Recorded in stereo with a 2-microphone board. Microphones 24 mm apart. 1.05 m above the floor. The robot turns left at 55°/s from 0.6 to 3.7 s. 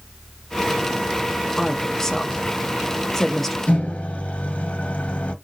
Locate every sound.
1.6 s a woman speaking: 15° left (ahead or behind), 0.7 m; by 3.6 s 5° left (ahead or behind), 0.7 m
3.7 s a microwave: 75° left (ahead or behind), 0.9 m